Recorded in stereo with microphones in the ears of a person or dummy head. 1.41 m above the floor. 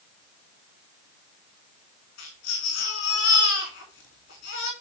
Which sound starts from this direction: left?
A baby crying, at 2.2 s.